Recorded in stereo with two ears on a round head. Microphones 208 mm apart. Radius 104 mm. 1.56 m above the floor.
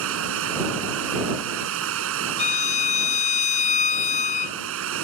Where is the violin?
30° left (ahead or behind).